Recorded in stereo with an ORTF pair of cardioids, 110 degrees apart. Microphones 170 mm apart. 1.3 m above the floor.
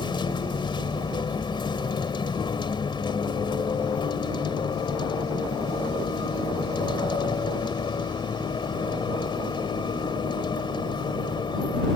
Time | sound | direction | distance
0.0 | a vehicle | 30° left | ?